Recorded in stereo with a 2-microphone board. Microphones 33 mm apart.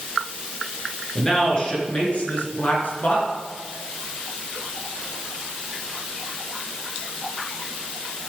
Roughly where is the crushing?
I don't hear crushing.